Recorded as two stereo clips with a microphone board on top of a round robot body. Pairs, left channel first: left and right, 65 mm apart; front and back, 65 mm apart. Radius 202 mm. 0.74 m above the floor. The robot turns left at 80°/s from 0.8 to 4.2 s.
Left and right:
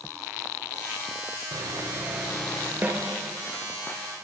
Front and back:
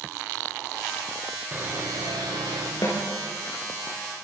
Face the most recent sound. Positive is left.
turn(degrees=-135)